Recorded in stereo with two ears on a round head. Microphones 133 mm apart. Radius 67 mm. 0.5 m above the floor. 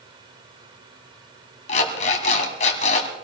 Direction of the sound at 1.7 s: 45° left (ahead or behind).